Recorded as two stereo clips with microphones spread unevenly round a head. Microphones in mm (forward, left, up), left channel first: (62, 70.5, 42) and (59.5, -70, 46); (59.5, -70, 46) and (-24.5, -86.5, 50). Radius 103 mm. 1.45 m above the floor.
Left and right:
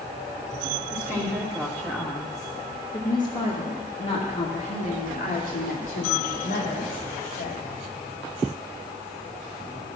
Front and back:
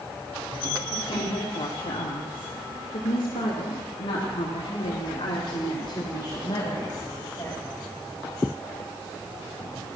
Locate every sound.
0.9 s a woman speaking: 5° right, 2.5 m; by 7.6 s 85° left, 3 m